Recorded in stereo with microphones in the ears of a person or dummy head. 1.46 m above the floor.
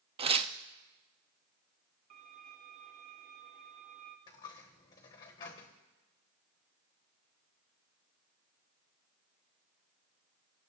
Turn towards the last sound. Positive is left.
turn(degrees=20)  # may be behind; listen again after turning